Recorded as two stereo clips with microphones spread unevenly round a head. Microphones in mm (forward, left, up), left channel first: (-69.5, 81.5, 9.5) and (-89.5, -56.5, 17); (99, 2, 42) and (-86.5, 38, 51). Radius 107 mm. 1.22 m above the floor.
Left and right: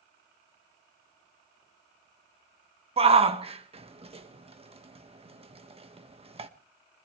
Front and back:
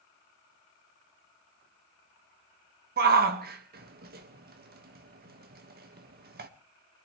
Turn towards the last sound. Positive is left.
turn(degrees=-145)